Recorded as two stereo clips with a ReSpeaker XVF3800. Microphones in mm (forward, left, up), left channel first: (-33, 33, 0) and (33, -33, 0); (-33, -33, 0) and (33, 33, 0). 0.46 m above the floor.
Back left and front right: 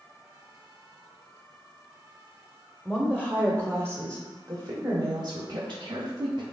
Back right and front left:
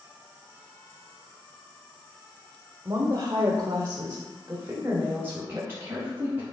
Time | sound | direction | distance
2.9 | a woman speaking | 40° left | 1.2 m